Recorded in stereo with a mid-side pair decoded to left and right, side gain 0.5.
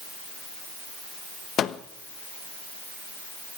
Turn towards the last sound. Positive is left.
turn(degrees=55)